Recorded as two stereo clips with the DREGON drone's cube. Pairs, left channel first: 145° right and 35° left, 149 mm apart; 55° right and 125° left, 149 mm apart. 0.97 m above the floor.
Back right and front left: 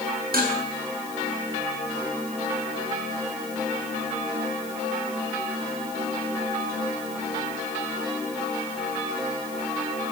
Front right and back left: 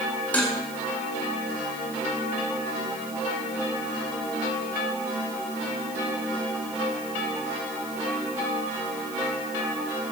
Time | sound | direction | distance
0.3 | dishes clattering | 25° left | 7 m